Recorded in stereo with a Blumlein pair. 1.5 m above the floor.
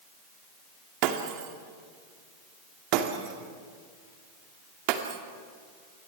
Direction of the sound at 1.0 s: 40° right.